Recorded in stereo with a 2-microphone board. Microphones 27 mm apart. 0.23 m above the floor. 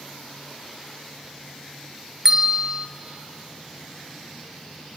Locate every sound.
2.2 s a bell: 15° right (ahead or behind), 1.5 m